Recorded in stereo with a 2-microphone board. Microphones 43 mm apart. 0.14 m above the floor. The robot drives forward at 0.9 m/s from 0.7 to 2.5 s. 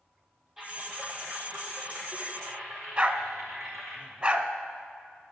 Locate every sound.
0.6 s typing on a keyboard: 5° right (ahead or behind), 1.8 m
3.0 s a dog barking: 20° right (ahead or behind), 0.6 m